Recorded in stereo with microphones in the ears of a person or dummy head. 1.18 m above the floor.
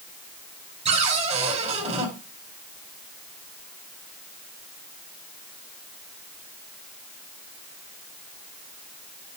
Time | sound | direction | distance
0.8 | a cupboard door | 35° right (ahead or behind) | 5 m